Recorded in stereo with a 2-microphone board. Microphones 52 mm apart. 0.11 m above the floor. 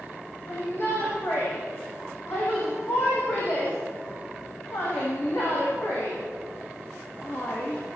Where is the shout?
50° left (ahead or behind), 7 m.